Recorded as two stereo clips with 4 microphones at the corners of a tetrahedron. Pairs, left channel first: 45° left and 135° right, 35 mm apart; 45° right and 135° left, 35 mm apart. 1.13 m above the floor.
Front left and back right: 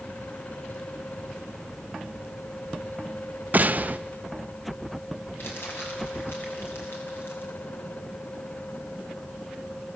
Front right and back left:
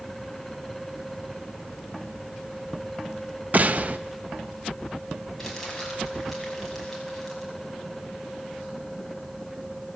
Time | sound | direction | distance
3.5 | a gunshot | straight behind | 0.7 m
5.4 | crumpling | 40° left | 5.5 m